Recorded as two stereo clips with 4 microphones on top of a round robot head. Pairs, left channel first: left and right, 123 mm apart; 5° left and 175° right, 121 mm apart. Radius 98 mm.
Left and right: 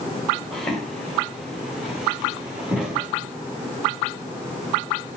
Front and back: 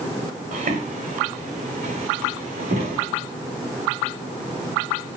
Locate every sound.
0.5 s footsteps: 175° left, 4.5 m; by 3.1 s 170° right, 5.5 m